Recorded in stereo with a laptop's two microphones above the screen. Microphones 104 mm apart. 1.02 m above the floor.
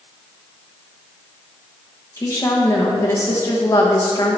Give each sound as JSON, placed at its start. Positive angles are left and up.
{"t": 2.2, "sound": "a woman speaking", "side_deg": 30, "distance_m": 1.1}